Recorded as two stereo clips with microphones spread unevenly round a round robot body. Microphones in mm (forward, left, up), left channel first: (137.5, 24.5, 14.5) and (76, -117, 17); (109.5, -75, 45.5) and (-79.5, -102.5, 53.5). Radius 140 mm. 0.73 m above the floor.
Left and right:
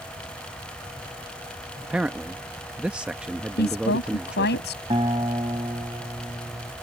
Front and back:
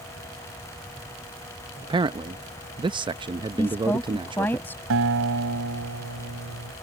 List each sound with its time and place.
1.8 s a man speaking: 170° left
3.6 s a woman speaking: 90° left
4.9 s a guitar: 175° left